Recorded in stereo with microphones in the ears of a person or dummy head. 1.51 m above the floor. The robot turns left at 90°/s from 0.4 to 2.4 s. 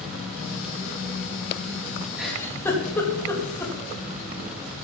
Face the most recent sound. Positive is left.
turn(degrees=10)  # may be behind; listen again after turning